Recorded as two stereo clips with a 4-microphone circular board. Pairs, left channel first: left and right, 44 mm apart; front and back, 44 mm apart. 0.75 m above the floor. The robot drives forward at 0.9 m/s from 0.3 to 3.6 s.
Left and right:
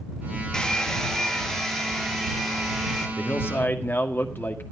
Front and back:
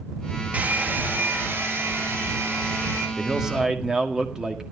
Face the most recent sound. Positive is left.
turn(degrees=110)